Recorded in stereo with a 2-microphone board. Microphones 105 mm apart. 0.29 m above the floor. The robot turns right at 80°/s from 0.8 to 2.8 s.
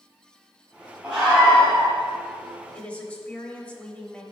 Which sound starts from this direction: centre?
A woman speaking, at 2.7 s.